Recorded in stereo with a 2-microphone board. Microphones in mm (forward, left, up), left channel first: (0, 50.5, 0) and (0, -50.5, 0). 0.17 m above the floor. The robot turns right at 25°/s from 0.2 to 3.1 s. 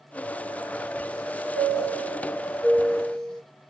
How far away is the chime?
About 2 m.